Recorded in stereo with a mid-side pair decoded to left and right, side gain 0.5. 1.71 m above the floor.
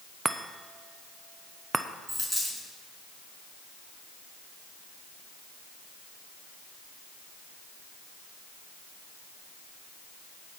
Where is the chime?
25° right, 0.8 m.